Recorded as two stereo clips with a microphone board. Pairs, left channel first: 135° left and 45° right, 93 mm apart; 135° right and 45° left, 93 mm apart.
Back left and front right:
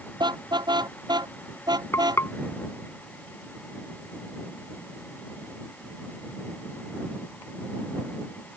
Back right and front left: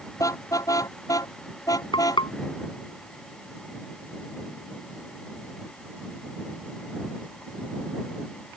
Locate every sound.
0.2 s a car horn: 80° right; by 2.2 s 85° right
1.9 s frying: 165° right